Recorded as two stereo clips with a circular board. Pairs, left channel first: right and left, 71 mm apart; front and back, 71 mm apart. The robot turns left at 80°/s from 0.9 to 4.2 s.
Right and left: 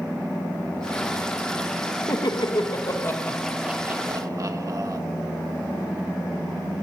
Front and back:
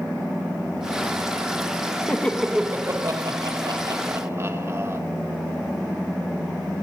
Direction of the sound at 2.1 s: 65° right.